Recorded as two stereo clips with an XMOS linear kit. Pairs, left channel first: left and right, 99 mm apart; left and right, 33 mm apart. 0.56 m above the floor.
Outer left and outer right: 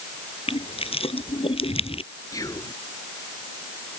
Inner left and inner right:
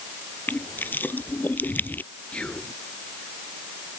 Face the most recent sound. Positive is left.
turn(degrees=40)  # may be behind; listen again after turning